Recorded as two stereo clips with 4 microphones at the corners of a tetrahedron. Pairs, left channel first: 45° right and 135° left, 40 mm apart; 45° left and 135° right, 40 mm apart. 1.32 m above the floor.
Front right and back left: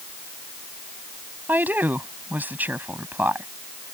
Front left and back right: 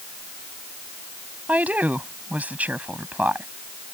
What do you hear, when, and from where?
1.5 s a woman speaking: 175° left